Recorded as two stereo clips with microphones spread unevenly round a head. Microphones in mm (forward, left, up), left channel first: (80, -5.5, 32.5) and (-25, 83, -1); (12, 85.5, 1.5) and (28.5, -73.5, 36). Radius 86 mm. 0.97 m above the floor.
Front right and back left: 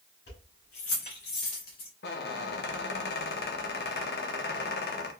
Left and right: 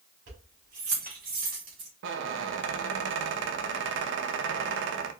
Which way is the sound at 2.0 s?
75° right.